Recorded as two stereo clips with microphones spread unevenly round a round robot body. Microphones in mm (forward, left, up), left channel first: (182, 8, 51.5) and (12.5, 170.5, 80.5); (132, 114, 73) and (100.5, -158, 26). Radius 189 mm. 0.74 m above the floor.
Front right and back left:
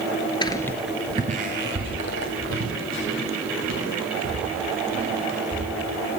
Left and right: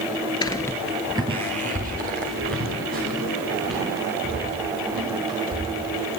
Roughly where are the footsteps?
Ahead left.